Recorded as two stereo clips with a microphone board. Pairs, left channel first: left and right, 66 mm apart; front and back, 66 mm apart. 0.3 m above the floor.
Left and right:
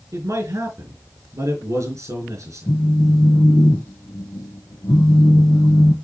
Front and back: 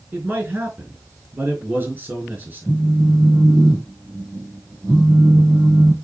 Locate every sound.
0.1 s a man speaking: 120° right, 4 m
2.7 s a phone buzzing: 90° left, 0.9 m